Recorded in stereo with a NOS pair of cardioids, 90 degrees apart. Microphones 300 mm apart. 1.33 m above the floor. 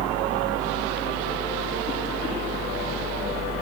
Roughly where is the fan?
Ahead right.